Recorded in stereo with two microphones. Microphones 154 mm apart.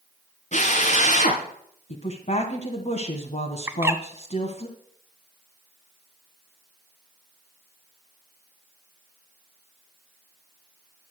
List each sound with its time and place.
0.5 s a drill: 50° left (ahead or behind), 3 m
1.9 s a woman speaking: 50° left (ahead or behind), 1.6 m
3.7 s a bird: 15° right (ahead or behind), 1.2 m